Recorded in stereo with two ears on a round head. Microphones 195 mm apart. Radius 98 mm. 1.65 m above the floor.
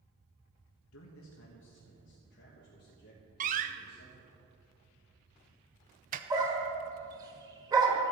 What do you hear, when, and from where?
0.9 s a man speaking: 75° left (ahead or behind), 1.0 m; by 4.4 s 45° left (ahead or behind), 3 m
3.4 s a door slam: 35° right (ahead or behind), 0.6 m
6.3 s a dog barking: 20° right (ahead or behind), 1.5 m